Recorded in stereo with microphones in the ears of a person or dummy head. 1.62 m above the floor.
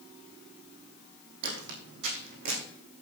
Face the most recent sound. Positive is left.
turn(degrees=-55)  # may be behind; listen again after turning